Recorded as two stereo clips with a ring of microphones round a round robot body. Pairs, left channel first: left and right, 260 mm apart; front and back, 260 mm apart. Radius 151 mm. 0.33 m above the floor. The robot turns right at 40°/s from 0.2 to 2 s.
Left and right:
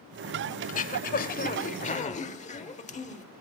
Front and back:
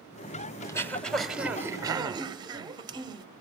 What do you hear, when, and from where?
0.6 s throat clearing: 65° left, 1.2 m; by 3.2 s 120° left, 1.2 m